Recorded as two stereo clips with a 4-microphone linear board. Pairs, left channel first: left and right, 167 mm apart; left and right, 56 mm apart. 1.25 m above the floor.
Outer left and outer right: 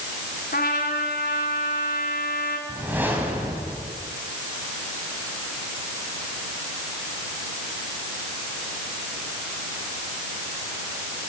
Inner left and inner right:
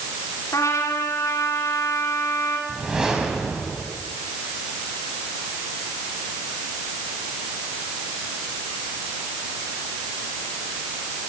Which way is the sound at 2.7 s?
10° right (ahead or behind).